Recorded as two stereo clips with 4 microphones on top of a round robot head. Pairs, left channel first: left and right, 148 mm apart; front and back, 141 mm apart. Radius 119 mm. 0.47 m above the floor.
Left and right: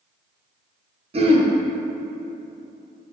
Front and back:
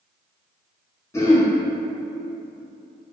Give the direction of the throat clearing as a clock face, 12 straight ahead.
2 o'clock.